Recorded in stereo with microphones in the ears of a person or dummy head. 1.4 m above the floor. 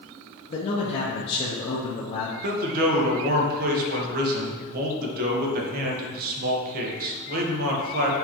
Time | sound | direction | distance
0.5 | a man speaking | 40° left (ahead or behind) | 1.0 m
2.4 | a man speaking | 55° right (ahead or behind) | 1.5 m